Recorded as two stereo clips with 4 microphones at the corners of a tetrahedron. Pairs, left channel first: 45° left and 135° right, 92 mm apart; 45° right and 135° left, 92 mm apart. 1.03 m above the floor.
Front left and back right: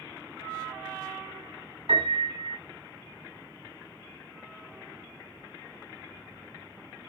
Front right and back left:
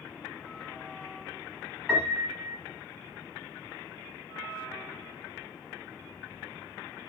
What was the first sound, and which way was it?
A piano, 145° right.